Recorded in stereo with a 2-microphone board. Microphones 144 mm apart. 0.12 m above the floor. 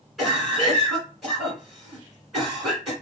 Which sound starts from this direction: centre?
A cough, at 0.2 s.